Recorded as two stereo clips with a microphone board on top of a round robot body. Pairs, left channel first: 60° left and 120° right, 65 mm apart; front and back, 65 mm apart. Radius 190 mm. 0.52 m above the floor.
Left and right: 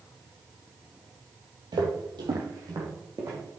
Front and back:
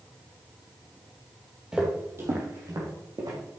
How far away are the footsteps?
About 1.3 m.